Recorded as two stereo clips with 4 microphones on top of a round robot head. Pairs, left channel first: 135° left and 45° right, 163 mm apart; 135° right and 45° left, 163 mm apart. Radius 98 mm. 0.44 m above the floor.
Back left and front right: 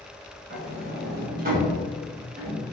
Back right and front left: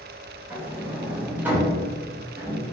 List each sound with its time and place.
0.5 s a sliding door: 35° right, 1.1 m